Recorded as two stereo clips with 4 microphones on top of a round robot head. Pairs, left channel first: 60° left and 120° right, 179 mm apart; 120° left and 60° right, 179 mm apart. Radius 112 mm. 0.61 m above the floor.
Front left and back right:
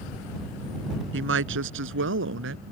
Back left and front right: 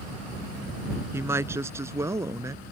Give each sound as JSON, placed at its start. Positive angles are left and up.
{"t": 1.1, "sound": "a woman speaking", "azimuth_deg": -135}